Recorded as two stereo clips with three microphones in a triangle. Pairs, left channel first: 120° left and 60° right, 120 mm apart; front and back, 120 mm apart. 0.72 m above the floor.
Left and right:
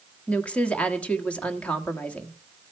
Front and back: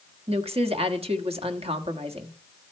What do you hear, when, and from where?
0.3 s a woman speaking: 160° right, 1.5 m